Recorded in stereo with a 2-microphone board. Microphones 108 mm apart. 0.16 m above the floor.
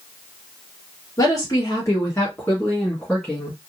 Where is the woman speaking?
35° left (ahead or behind), 2.5 m; by 3.6 s centre (ahead or behind), 1.8 m.